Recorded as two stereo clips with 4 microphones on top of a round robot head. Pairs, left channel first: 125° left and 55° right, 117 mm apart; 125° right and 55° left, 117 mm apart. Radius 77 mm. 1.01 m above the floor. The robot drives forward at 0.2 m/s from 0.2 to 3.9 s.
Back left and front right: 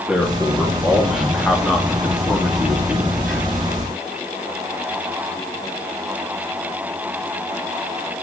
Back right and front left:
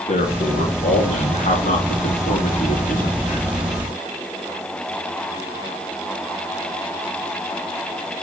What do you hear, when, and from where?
0.1 s a man speaking: 140° right, 2.5 m; by 3.4 s 150° right, 3 m